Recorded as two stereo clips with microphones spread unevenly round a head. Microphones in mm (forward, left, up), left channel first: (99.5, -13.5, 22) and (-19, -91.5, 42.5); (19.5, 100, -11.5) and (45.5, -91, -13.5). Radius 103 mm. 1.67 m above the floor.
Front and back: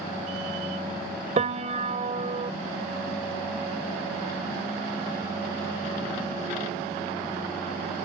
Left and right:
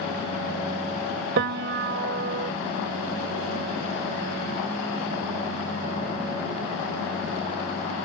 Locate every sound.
1.4 s a piano: 115° right